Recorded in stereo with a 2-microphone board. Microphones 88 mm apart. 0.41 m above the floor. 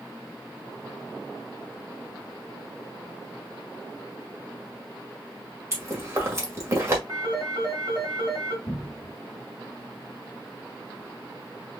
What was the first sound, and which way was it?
Chewing, 30° right (ahead or behind).